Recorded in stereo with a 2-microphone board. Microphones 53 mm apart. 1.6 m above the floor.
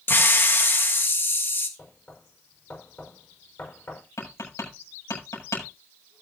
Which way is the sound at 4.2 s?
85° left.